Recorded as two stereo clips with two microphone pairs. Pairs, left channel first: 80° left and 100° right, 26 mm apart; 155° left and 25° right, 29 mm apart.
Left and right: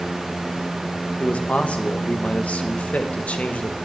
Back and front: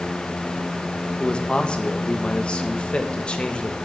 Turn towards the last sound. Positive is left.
turn(degrees=110)